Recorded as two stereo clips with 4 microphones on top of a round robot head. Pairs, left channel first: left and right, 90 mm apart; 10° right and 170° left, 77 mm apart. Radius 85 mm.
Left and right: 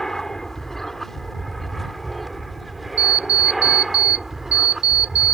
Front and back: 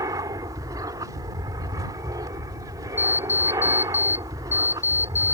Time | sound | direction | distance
0.0 | an aircraft | 175° left | ?
3.0 | an alarm clock | 70° right | ?